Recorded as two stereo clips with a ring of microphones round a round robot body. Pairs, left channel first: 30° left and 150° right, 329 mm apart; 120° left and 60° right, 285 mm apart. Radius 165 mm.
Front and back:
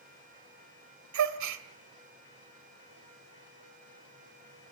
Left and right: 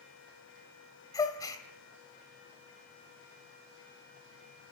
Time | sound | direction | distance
1.1 | a gasp | 165° right | 1.8 m